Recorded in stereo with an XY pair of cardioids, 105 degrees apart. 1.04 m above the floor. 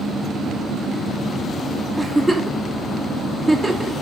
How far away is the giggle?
About 2.5 m.